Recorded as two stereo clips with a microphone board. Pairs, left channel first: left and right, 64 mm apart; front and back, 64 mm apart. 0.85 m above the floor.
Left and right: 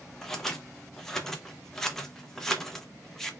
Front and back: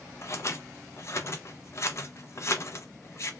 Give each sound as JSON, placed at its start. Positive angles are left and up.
{"t": 0.2, "sound": "scissors", "azimuth_deg": 10, "distance_m": 0.8}